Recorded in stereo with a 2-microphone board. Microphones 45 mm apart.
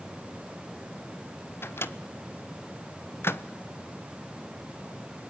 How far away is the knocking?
I don't hear knocking.